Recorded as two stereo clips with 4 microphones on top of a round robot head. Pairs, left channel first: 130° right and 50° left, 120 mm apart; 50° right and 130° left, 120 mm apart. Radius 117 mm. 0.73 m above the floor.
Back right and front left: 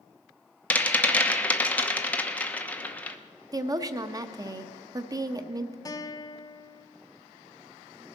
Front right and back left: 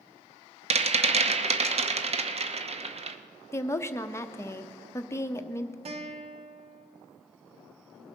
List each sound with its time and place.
0.7 s a rattle: 150° left, 1.0 m
3.5 s a woman speaking: 5° left, 0.8 m
5.8 s a guitar: 165° left, 0.9 m